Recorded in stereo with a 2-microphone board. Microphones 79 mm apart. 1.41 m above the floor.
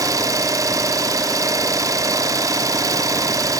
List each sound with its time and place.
0.0 s an engine running: 45° right (ahead or behind), 1.4 m